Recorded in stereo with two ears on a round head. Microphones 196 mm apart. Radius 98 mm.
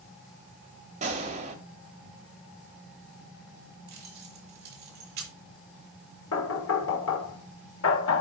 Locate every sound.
1.0 s a gunshot: 35° right (ahead or behind), 1.9 m
3.9 s keys jangling: 45° right (ahead or behind), 2.5 m
6.3 s knocking: 70° left (ahead or behind), 1.3 m